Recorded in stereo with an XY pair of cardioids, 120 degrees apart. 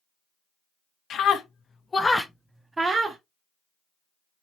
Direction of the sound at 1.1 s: 60° left.